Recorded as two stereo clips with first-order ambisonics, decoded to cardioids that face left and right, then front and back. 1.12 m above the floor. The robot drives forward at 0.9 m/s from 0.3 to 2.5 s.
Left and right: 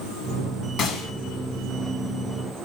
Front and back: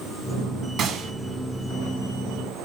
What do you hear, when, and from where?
0.8 s a gunshot: 135° left, 1.5 m; by 1.1 s 145° left, 1.7 m